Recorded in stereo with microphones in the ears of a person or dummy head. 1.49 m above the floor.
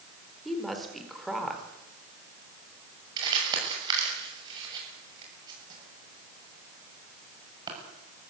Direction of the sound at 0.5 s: Centre (ahead or behind).